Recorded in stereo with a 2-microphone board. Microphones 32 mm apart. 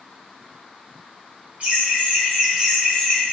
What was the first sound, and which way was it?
Laughter, 45° right (ahead or behind).